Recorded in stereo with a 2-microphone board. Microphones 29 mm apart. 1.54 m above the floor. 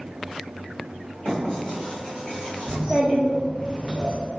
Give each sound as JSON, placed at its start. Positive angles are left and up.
{"t": 1.2, "sound": "writing", "side_deg": 45, "distance_m": 1.5}
{"t": 2.7, "sound": "a child speaking", "side_deg": -15, "distance_m": 0.7}